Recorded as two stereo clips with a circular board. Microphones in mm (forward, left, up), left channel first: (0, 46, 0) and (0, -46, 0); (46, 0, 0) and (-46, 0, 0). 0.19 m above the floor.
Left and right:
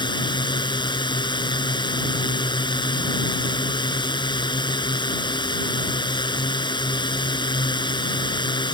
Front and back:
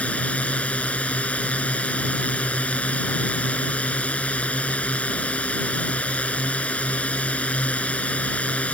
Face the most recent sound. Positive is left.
turn(degrees=75)